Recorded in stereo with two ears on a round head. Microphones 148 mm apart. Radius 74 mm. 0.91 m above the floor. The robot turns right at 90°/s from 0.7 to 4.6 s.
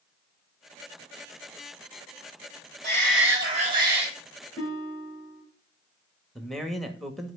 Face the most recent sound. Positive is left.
turn(degrees=0)  # may be behind; listen again after turning